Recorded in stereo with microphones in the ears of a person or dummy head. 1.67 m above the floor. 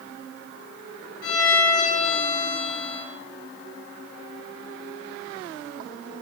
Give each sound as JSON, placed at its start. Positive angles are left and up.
{"t": 1.2, "sound": "a violin", "side_deg": 60, "distance_m": 0.7}